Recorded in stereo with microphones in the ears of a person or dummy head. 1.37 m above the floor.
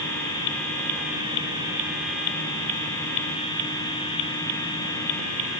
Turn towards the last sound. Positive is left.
No sound to turn to.